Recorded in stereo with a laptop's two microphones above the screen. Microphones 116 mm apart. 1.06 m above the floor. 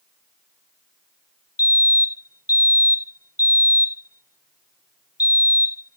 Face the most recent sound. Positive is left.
turn(degrees=30)  # may be behind; listen again after turning